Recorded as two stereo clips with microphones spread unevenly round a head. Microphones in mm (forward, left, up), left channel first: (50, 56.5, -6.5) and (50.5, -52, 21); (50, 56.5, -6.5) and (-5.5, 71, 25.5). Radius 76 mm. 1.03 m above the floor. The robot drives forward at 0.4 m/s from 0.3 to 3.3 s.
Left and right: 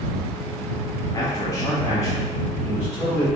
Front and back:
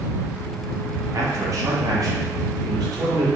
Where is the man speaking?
120° left, 1.1 m; by 3.3 s 150° left, 1.7 m.